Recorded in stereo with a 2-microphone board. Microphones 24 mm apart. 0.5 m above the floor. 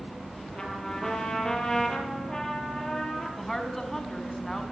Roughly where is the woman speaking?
Centre.